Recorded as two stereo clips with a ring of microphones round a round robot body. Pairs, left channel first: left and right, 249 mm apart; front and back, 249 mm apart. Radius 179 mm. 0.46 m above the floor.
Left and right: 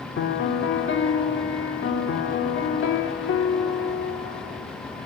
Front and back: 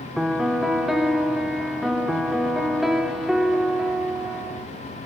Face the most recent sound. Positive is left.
turn(degrees=90)